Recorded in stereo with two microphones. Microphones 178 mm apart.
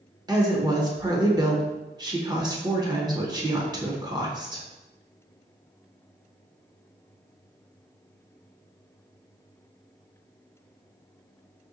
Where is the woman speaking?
20° right (ahead or behind), 0.8 m.